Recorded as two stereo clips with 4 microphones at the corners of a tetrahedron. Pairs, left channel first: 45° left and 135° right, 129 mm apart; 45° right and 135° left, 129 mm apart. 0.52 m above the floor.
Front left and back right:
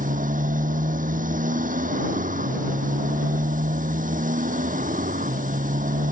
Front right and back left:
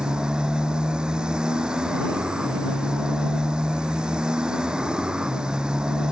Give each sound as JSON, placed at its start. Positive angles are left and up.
{"t": 0.0, "sound": "a motorcycle", "azimuth_deg": -140}